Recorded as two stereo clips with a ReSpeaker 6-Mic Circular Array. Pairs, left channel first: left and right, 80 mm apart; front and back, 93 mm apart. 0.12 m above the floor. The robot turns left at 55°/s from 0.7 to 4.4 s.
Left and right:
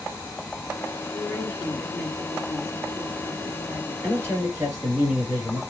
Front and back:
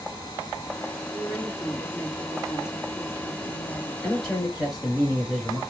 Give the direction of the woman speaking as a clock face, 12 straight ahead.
9 o'clock.